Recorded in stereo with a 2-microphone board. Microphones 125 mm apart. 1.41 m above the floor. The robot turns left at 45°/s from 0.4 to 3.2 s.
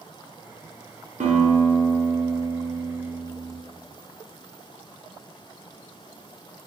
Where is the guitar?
85° right, 0.6 m; by 3.6 s 175° right, 0.6 m.